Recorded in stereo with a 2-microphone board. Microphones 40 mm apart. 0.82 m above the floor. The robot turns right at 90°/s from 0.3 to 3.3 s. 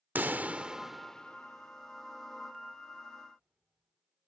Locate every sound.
0.1 s a pop: 50° right (ahead or behind); by 4.3 s 25° right (ahead or behind)